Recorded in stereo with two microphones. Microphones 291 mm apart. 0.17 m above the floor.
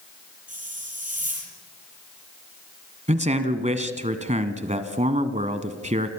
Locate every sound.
0.5 s a hiss: 25° right (ahead or behind), 6 m
3.1 s a man speaking: 25° right (ahead or behind), 1.4 m